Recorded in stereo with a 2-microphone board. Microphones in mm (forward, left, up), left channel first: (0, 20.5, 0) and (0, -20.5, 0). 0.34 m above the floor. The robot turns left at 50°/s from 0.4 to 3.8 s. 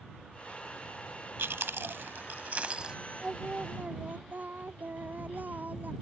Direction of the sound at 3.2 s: 15° right (ahead or behind).